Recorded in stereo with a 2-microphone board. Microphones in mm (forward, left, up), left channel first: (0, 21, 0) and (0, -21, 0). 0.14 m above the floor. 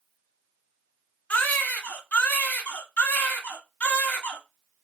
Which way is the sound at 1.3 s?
40° left (ahead or behind).